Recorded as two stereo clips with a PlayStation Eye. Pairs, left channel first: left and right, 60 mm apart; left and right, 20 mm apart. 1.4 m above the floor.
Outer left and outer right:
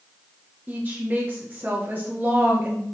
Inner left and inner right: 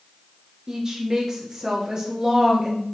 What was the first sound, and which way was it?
A woman speaking, 30° right (ahead or behind).